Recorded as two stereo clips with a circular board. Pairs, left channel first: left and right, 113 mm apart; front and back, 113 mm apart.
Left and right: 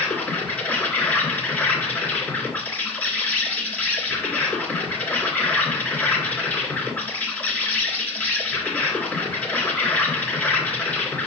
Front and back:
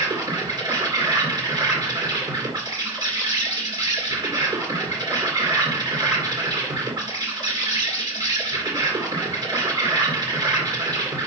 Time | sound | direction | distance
0.0 | an insect | 160° left | 2.5 m